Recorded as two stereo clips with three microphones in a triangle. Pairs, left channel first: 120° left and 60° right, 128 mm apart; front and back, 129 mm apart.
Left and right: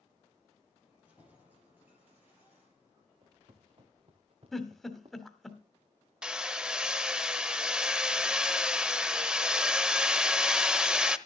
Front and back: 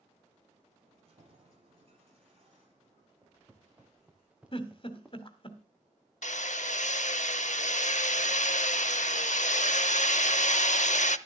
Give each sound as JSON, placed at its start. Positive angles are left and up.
{"t": 0.8, "sound": "keys jangling", "azimuth_deg": -140, "distance_m": 8.5}
{"t": 3.2, "sound": "footsteps", "azimuth_deg": -105, "distance_m": 3.0}
{"t": 4.5, "sound": "a giggle", "azimuth_deg": 35, "distance_m": 1.7}
{"t": 6.2, "sound": "hammering", "azimuth_deg": 25, "distance_m": 0.6}